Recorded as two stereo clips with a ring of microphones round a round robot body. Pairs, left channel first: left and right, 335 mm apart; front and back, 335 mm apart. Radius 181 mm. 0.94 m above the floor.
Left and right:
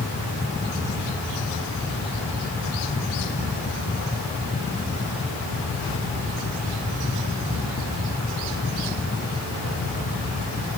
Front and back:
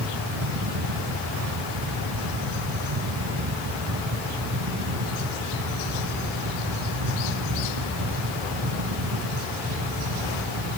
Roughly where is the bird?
I don't hear a bird.